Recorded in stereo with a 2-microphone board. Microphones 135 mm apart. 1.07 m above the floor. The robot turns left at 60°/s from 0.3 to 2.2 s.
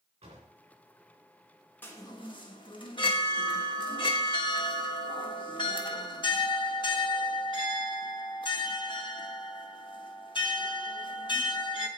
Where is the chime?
15° left (ahead or behind), 1.3 m; by 11.9 s 35° left (ahead or behind), 1.3 m.